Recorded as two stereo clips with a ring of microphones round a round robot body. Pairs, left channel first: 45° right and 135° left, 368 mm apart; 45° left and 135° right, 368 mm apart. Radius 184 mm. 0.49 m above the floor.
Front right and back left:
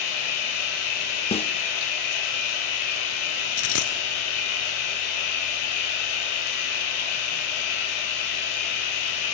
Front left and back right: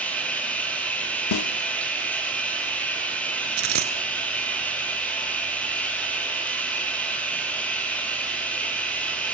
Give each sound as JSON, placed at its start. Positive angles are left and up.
{"t": 0.0, "sound": "running water", "azimuth_deg": -40, "distance_m": 6.0}
{"t": 1.3, "sound": "a snare drum", "azimuth_deg": 25, "distance_m": 0.7}
{"t": 3.6, "sound": "a dropped coin", "azimuth_deg": -90, "distance_m": 1.8}